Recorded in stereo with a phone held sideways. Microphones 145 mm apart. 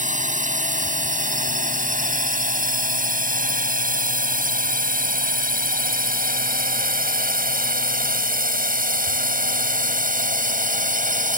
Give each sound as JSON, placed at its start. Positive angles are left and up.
{"t": 0.0, "sound": "a drone", "side_deg": -60}